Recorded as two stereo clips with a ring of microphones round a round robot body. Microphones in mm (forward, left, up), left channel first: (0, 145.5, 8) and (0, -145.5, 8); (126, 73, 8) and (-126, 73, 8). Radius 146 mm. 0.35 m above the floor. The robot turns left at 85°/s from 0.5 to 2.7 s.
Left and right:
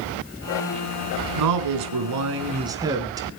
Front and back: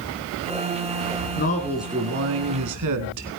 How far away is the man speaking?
About 3.5 m.